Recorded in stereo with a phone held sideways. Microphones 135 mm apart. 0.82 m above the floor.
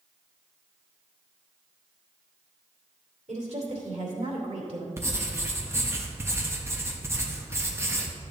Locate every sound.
3.3 s a woman speaking: 60° right (ahead or behind), 2.5 m
5.0 s writing: 20° right (ahead or behind), 1.1 m